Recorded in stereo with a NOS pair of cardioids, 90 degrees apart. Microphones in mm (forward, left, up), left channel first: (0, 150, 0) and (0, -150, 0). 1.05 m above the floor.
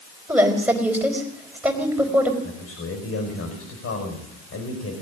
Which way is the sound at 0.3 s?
5° right.